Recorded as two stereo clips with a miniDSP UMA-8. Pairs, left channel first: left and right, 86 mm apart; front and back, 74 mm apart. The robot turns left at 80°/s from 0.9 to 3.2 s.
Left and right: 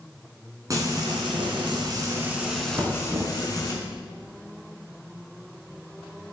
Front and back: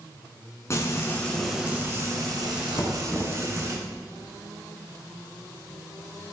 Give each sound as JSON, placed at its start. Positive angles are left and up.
{"t": 0.7, "sound": "frying", "azimuth_deg": -45, "distance_m": 2.5}
{"t": 2.8, "sound": "knocking", "azimuth_deg": -20, "distance_m": 1.8}